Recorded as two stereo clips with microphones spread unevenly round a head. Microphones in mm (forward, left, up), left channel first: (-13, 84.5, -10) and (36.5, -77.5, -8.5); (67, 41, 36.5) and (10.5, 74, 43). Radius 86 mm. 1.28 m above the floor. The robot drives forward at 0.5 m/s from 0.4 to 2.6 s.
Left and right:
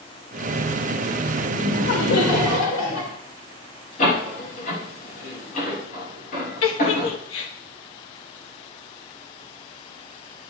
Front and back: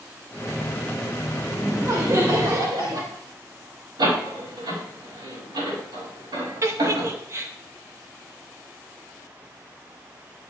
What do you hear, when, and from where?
1.5 s laughter: 105° left, 2.0 m; by 3.1 s 120° left, 2 m
4.0 s a door slam: 155° left, 5.5 m
6.6 s a giggle: 110° left, 1.1 m